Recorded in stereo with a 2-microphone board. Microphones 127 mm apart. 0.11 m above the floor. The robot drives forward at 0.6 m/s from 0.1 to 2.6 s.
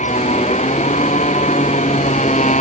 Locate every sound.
0.0 s a motorcycle: 70° left (ahead or behind); by 2.6 s 75° left (ahead or behind)